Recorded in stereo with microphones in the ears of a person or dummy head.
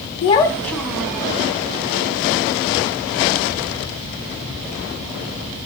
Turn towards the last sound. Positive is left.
turn(degrees=-10)  # may be behind; listen again after turning